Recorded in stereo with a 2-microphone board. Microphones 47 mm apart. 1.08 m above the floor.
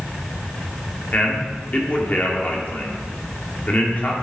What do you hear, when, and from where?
1.1 s a man speaking: 40° left (ahead or behind), 2 m